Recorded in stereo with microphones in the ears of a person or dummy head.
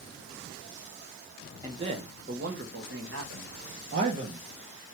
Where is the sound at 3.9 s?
45° right (ahead or behind), 0.8 m.